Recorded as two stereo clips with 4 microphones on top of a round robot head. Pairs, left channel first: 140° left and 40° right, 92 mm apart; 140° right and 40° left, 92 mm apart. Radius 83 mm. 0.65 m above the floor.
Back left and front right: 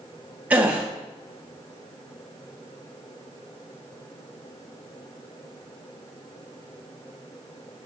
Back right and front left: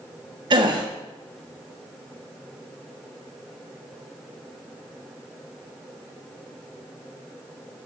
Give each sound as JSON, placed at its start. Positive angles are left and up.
{"t": 0.5, "sound": "a gasp", "azimuth_deg": 30, "distance_m": 1.5}